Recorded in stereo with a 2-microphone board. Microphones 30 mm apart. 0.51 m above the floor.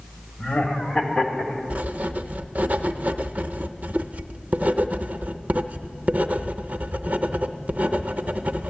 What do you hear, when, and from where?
0.4 s laughter: 45° left (ahead or behind), 2 m; by 1.6 s 25° left (ahead or behind), 1.7 m
1.7 s writing: 60° right (ahead or behind), 0.5 m